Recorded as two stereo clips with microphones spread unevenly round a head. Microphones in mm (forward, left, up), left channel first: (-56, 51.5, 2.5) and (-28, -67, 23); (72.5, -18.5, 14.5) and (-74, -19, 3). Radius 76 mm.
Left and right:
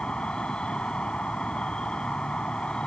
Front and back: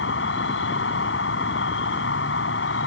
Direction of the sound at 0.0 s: 15° left.